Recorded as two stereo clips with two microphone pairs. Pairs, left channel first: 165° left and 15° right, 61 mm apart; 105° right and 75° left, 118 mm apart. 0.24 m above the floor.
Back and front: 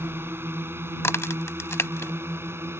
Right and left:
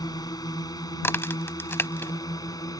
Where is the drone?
55° right.